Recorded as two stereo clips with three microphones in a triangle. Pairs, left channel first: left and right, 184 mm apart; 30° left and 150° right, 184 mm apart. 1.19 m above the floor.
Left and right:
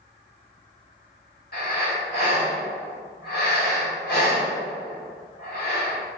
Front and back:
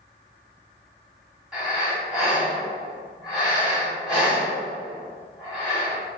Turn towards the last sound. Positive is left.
turn(degrees=125)